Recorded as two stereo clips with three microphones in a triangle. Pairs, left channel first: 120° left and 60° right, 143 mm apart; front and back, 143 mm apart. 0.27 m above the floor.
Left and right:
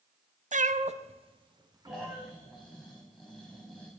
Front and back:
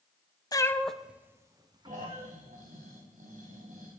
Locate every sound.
0.5 s a cat meowing: 60° right, 0.7 m; by 2.3 s 130° right, 1.5 m
1.9 s snoring: 150° right, 5 m